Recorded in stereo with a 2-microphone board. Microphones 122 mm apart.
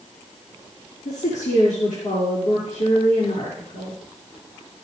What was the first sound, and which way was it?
A woman speaking, 80° left.